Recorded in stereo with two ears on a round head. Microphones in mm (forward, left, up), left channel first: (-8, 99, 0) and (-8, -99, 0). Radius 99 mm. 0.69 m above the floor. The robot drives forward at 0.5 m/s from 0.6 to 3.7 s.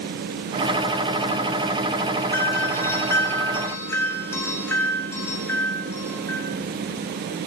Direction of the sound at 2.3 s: 15° left (ahead or behind).